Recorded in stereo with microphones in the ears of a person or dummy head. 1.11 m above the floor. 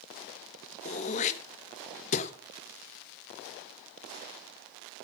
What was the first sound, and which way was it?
Throat clearing, 40° left (ahead or behind).